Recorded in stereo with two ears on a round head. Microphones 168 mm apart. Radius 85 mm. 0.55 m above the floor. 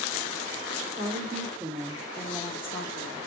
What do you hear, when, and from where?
1.0 s a woman speaking: 40° right (ahead or behind), 0.9 m; by 3.2 s 40° left (ahead or behind), 1.0 m